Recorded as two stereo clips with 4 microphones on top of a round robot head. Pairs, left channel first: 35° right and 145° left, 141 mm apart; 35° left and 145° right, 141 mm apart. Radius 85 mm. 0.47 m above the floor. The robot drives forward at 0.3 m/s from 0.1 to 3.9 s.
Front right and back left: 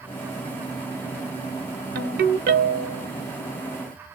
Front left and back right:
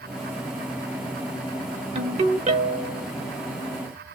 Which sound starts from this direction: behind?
A ringtone, at 1.9 s.